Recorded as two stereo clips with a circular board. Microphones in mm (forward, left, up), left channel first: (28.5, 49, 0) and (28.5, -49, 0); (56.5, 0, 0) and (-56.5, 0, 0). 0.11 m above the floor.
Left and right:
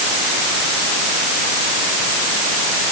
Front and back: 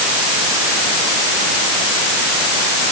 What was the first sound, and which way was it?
Only background noise.